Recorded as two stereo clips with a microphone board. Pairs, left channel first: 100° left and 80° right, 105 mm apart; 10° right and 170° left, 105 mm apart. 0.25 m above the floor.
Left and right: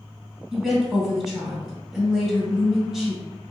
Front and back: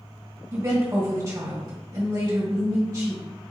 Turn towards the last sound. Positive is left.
turn(degrees=-165)